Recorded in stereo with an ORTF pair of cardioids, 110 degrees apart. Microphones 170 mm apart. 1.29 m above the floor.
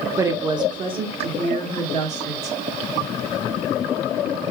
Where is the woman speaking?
15° right, 1.0 m; by 2.6 s 45° right, 2.5 m.